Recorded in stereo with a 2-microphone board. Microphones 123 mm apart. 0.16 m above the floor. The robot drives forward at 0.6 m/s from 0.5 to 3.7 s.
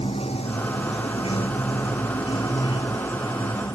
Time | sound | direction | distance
0.0 | running water | 55° left (ahead or behind) | ?